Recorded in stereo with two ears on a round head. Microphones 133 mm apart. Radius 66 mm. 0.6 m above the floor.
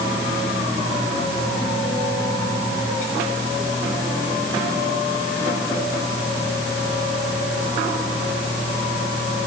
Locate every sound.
Only background noise.